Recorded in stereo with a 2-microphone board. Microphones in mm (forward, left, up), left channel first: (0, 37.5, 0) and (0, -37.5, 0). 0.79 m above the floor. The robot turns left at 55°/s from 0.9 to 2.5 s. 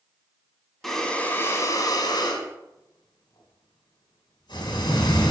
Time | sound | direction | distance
0.8 | breathing | 175° left | 2 m